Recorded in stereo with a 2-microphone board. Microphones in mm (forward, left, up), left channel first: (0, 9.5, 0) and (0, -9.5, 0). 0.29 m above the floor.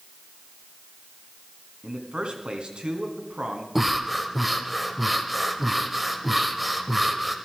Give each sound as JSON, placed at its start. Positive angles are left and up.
{"t": 1.8, "sound": "a man speaking", "side_deg": -65, "distance_m": 2.0}
{"t": 3.8, "sound": "breathing", "side_deg": -10, "distance_m": 1.0}